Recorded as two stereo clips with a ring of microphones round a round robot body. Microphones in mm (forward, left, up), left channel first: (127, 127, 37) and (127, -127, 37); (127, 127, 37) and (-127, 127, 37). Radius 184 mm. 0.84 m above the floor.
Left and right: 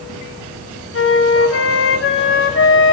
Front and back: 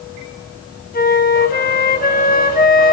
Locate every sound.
0.9 s a flute: 55° left, 3 m